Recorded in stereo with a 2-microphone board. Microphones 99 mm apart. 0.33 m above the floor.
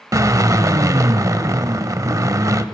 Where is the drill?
35° right (ahead or behind), 0.5 m.